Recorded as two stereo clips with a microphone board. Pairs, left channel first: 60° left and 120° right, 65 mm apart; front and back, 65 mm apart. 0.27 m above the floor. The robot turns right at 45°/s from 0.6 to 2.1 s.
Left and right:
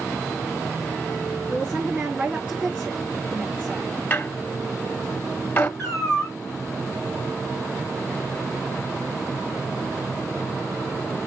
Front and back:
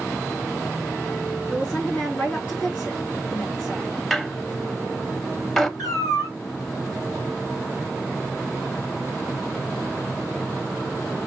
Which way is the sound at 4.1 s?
80° left.